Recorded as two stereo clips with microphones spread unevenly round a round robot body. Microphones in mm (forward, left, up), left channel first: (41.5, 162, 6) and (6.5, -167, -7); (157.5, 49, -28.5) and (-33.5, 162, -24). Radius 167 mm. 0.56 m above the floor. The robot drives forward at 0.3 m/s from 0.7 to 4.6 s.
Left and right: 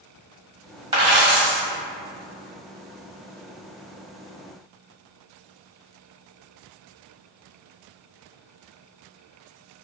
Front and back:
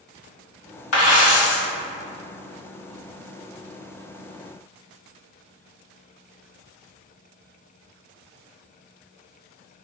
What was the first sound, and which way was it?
A dropped coin, 15° right.